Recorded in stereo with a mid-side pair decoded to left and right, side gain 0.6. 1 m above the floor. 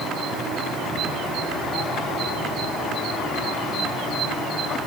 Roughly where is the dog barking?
No dog barking in this recording.